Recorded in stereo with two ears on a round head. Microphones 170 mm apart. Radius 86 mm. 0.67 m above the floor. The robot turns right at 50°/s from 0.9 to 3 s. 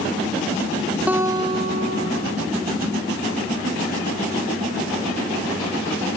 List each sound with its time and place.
1.1 s a guitar: 170° right, 2.5 m; by 2.4 s 105° right, 2.5 m